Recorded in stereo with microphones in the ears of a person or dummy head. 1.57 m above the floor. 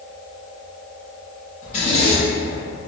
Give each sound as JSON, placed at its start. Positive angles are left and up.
{"t": 1.6, "sound": "a zipper", "side_deg": 35, "distance_m": 1.2}